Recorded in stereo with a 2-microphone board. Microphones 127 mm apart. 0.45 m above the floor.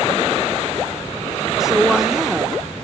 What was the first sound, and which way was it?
A woman speaking, 5° right (ahead or behind).